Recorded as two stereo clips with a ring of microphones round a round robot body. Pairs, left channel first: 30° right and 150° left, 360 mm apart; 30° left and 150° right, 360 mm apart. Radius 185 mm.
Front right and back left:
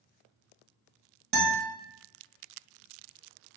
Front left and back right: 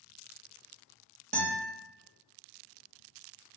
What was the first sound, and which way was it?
A guitar, 165° left.